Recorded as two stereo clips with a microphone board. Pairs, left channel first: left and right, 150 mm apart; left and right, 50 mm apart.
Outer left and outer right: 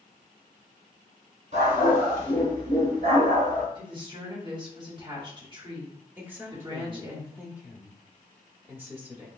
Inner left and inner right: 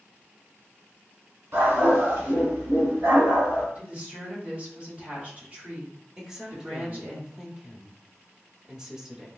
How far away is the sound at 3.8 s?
About 1.4 m.